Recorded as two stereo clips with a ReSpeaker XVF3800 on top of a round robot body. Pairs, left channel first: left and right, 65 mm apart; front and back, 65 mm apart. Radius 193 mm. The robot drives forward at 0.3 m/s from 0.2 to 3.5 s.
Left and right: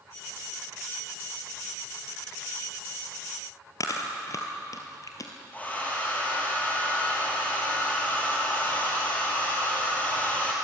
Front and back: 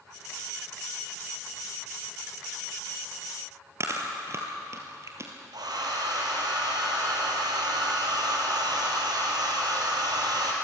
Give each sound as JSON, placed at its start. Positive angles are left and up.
{"t": 3.8, "sound": "chewing", "azimuth_deg": 130, "distance_m": 2.0}
{"t": 5.5, "sound": "a hair dryer", "azimuth_deg": 160, "distance_m": 3.5}